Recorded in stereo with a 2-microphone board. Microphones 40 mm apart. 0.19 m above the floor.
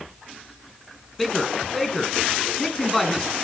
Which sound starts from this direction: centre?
A man speaking, at 1.2 s.